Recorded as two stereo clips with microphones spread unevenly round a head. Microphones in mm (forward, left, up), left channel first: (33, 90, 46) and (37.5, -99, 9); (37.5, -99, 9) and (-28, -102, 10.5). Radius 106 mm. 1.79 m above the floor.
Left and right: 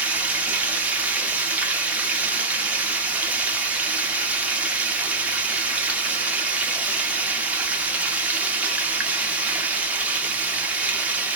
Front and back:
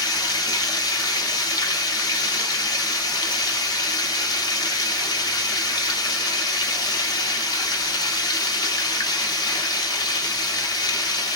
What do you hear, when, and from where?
0.0 s running water: straight ahead, 0.8 m